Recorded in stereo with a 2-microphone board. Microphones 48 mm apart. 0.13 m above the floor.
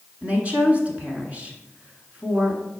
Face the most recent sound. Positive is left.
turn(degrees=-30)  # may be behind; listen again after turning